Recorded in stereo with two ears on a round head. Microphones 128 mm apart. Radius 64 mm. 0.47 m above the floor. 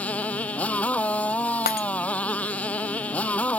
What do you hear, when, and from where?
0.0 s a motorcycle: 10° left (ahead or behind)
1.7 s breaking glass: 70° left (ahead or behind)